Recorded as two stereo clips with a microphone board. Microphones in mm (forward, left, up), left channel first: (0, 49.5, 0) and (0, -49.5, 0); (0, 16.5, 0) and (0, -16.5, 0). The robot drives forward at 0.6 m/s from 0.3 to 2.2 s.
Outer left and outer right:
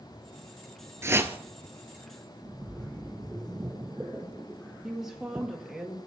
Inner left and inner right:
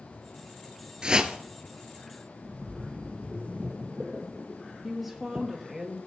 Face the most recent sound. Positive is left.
turn(degrees=-5)  # may be behind; listen again after turning